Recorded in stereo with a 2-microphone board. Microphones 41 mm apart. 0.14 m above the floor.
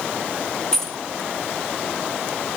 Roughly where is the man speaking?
No man speaking in this recording.